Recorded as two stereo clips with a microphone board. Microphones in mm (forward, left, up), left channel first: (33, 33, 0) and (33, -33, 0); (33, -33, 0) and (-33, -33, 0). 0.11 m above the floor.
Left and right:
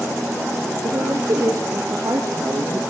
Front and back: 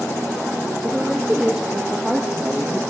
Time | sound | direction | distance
0.8 | a woman speaking | 105° right | 3 m